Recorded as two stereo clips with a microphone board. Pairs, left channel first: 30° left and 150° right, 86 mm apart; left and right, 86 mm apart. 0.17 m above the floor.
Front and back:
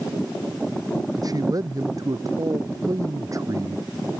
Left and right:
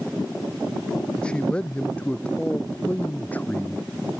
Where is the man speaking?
170° left; by 3.9 s 160° left.